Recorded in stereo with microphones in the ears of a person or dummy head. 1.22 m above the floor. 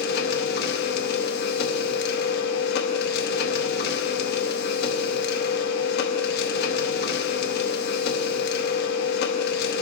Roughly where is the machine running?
Left.